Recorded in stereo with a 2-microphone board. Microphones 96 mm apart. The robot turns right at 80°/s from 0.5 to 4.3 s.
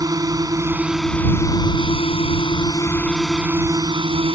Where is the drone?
40° right; by 4.4 s 95° right.